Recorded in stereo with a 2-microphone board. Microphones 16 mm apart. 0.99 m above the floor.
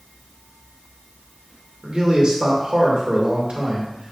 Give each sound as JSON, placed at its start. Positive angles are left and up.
{"t": 1.8, "sound": "a man speaking", "side_deg": -55, "distance_m": 2.5}